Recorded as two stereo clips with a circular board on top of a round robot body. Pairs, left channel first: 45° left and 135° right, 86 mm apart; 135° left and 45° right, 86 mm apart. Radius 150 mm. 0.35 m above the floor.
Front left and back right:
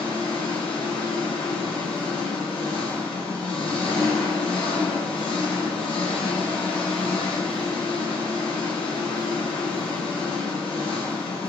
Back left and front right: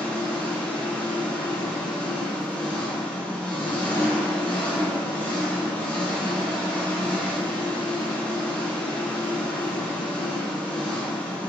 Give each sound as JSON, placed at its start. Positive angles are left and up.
{"t": 0.0, "sound": "an engine running", "azimuth_deg": 60, "distance_m": 0.9}